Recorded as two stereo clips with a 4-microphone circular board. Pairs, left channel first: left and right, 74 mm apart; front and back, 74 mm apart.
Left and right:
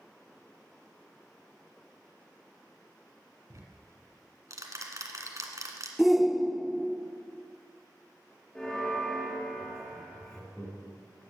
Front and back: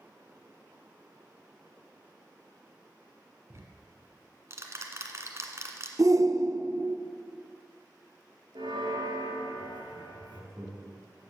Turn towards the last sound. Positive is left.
turn(degrees=150)